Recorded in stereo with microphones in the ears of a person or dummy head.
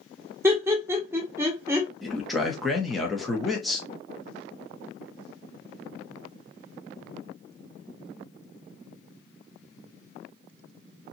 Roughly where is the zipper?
No zipper in this recording.